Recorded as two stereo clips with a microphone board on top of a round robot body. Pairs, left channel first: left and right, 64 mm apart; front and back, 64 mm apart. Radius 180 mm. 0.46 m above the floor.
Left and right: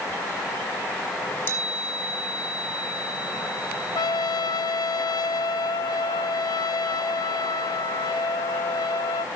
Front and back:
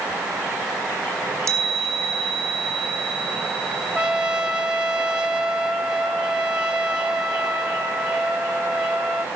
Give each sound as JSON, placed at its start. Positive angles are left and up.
{"t": 1.1, "sound": "a chime", "azimuth_deg": 145, "distance_m": 3.5}
{"t": 4.0, "sound": "a trumpet", "azimuth_deg": 100, "distance_m": 0.6}